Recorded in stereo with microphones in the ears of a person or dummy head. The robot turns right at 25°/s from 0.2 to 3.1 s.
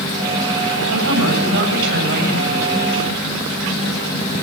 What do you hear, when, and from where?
0.9 s a woman speaking: 85° right, 8 m; by 2.7 s 40° right, 8 m